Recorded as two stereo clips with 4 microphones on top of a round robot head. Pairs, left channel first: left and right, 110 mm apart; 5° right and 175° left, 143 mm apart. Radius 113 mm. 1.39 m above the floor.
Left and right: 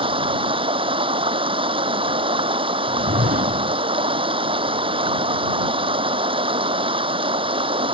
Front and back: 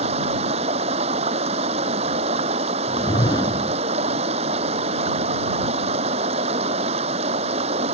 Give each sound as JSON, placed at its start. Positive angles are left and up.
{"t": 0.0, "sound": "running water", "azimuth_deg": -130}
{"t": 2.9, "sound": "a whoosh", "azimuth_deg": -75}